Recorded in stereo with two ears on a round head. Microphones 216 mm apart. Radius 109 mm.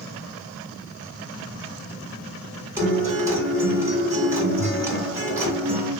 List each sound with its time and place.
2.8 s a guitar: 15° right (ahead or behind), 3 m